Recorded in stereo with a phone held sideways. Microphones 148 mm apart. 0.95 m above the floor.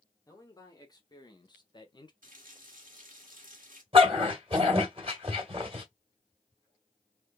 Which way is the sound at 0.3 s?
25° left (ahead or behind).